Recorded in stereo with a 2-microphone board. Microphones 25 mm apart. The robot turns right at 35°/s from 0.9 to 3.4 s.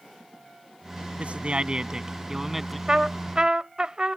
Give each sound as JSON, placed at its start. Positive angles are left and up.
{"t": 1.2, "sound": "a man speaking", "azimuth_deg": -55}
{"t": 2.9, "sound": "a trumpet", "side_deg": -35}